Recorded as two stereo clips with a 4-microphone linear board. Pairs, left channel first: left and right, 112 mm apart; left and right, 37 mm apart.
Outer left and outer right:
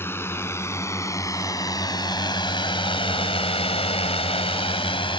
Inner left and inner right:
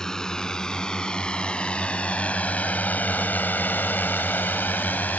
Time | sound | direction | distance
0.0 | a drone | 20° left (ahead or behind) | ?